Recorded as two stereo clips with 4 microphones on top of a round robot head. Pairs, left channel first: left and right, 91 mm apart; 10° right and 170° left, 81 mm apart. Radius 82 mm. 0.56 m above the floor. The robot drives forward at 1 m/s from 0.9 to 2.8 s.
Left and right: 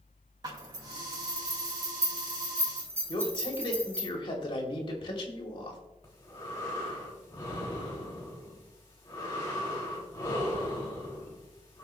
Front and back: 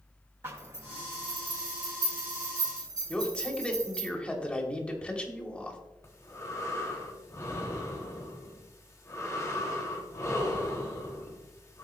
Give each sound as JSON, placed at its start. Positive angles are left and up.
{"t": 0.4, "sound": "a zipper", "azimuth_deg": -130, "distance_m": 2.5}
{"t": 3.1, "sound": "a man speaking", "azimuth_deg": 65, "distance_m": 3.0}
{"t": 6.0, "sound": "breathing", "azimuth_deg": 40, "distance_m": 3.0}